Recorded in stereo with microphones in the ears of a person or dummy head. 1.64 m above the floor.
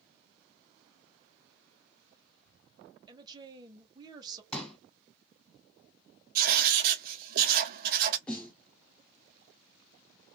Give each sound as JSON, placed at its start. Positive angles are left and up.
{"t": 3.1, "sound": "a woman speaking", "side_deg": -25, "distance_m": 1.0}
{"t": 4.5, "sound": "a pop", "side_deg": 5, "distance_m": 1.7}
{"t": 6.3, "sound": "writing", "side_deg": -55, "distance_m": 0.6}
{"t": 8.3, "sound": "a snare drum", "side_deg": 10, "distance_m": 0.8}